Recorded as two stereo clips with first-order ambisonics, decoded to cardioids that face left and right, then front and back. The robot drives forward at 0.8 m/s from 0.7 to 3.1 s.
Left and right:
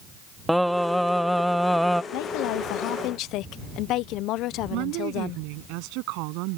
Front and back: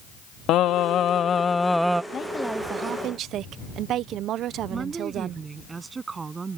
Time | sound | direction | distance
0.5 | singing | straight ahead | ?
2.1 | a woman speaking | 65° left | ?
4.7 | a woman speaking | 105° right | ?